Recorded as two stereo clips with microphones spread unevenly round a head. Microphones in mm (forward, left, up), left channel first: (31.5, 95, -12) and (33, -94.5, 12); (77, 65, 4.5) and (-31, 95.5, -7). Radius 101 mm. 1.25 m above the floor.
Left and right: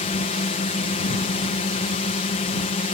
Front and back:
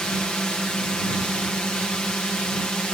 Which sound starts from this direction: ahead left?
A drone, at 0.0 s.